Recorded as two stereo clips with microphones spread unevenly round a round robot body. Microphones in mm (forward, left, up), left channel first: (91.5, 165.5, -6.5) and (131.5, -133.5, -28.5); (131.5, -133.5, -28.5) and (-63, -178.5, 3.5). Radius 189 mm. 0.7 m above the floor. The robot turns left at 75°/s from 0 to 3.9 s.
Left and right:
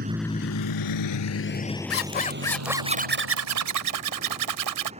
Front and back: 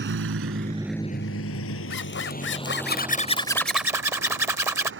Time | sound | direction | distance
0.0 | a vehicle | 145° right | ?
1.9 | a zipper | 60° left | ?